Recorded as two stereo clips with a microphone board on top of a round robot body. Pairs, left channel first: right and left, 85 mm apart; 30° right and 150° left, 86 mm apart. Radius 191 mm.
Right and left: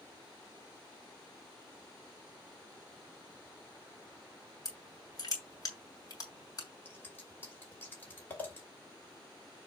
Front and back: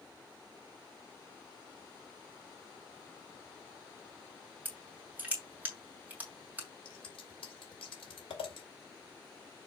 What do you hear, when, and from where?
4.7 s crushing: 140° right, 2 m
6.8 s scissors: 25° right, 2.5 m